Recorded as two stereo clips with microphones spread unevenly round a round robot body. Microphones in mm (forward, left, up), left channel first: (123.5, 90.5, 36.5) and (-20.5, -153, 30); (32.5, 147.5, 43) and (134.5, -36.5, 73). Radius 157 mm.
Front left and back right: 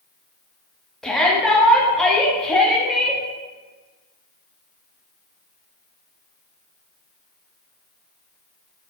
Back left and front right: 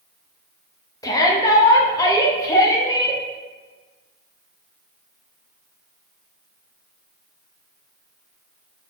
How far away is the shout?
About 1.1 m.